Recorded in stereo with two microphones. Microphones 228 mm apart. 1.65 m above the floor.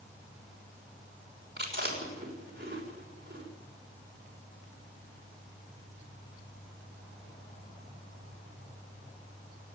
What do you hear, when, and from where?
1.6 s chewing: 45° right (ahead or behind), 6 m